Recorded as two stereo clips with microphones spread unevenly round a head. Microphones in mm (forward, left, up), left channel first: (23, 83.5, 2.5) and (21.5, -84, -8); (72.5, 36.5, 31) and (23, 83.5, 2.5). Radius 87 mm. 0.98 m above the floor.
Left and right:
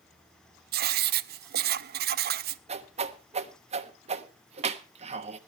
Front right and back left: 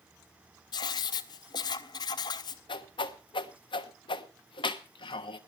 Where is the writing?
60° right, 0.6 m.